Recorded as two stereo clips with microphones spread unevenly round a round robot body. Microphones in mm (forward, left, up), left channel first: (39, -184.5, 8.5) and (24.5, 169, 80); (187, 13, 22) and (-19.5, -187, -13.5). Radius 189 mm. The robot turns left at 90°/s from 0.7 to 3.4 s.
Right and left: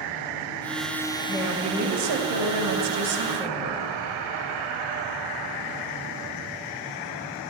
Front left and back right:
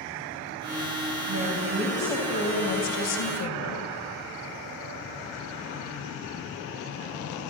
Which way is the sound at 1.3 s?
155° right.